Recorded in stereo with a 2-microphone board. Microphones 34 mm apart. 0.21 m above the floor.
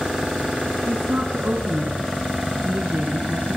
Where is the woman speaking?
55° right (ahead or behind), 2 m.